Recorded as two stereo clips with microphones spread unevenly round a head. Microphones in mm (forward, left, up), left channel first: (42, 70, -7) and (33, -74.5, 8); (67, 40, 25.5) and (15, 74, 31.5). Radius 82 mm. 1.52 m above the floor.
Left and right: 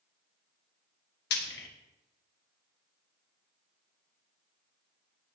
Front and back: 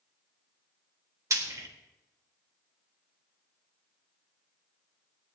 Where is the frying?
110° left, 1.8 m.